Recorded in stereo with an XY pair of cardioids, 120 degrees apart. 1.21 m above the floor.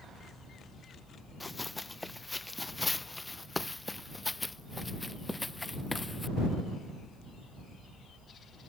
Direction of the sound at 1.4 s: 15° left.